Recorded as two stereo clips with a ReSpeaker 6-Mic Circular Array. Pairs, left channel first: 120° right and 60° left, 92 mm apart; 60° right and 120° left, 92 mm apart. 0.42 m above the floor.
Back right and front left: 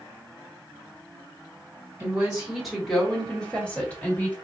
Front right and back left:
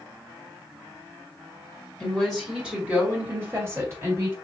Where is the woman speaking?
15° left, 1.2 m; by 4.3 s 170° left, 2.0 m.